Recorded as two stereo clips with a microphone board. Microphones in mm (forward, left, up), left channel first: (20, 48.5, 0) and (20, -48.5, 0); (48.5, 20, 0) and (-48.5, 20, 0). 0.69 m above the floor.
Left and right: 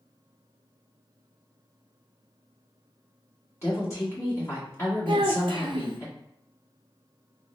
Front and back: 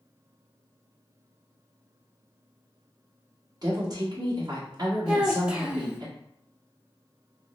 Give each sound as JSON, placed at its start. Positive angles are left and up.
{"t": 3.6, "sound": "a woman speaking", "azimuth_deg": 145, "distance_m": 1.7}
{"t": 5.1, "sound": "a child speaking", "azimuth_deg": -100, "distance_m": 0.7}